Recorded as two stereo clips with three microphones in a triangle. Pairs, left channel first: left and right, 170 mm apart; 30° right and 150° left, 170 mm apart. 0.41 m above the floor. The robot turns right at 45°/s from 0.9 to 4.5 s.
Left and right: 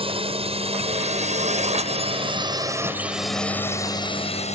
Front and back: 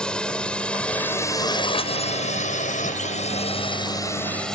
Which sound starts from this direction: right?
A drone, at 0.0 s.